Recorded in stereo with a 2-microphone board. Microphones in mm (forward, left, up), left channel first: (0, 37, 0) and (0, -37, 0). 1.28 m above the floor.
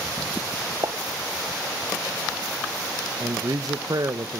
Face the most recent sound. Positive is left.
turn(degrees=-55)  # may be behind; listen again after turning